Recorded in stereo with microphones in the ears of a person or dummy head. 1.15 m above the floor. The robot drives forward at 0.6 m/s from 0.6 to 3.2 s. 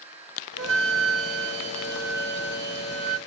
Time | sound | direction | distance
0.6 | a flute | 75° right (ahead or behind) | 1.5 m